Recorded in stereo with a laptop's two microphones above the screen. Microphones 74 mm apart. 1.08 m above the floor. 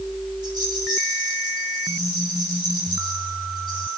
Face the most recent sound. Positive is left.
turn(degrees=-75)  # may be behind; listen again after turning